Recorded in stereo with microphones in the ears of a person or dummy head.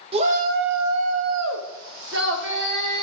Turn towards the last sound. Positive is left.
turn(degrees=-55)  # may be behind; listen again after turning